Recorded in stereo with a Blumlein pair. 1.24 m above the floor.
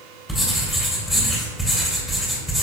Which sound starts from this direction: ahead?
Writing, at 0.3 s.